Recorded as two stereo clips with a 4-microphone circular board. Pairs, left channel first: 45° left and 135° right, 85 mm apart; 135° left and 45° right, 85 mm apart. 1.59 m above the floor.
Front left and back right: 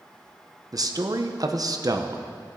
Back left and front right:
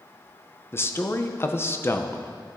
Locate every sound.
0.7 s a man speaking: 165° right, 0.8 m